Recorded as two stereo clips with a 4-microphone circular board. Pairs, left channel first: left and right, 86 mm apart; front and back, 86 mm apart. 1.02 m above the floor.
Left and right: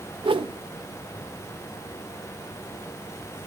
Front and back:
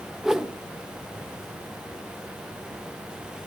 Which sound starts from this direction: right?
A whoosh, at 0.2 s.